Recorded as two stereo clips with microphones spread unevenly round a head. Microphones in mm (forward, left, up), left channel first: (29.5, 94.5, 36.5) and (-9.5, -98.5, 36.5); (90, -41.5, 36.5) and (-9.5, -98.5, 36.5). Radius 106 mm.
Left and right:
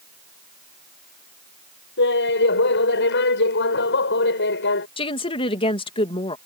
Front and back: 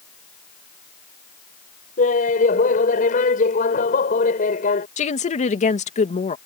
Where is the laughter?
45° left.